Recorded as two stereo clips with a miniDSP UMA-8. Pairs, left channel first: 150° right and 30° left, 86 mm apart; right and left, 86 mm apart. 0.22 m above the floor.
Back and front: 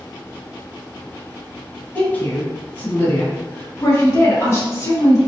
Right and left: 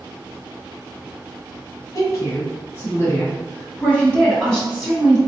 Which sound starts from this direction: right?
A woman speaking, at 1.9 s.